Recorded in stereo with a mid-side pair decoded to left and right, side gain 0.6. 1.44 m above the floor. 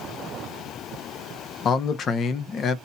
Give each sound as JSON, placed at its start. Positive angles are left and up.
{"t": 1.6, "sound": "a man speaking", "azimuth_deg": 40, "distance_m": 0.9}